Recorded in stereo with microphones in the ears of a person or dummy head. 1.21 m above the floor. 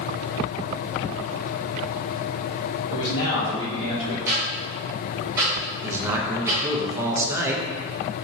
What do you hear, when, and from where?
2.9 s a man speaking: 80° left, 1.3 m
4.3 s ticking: 20° right (ahead or behind), 1.0 m
5.8 s a man speaking: 15° right (ahead or behind), 0.6 m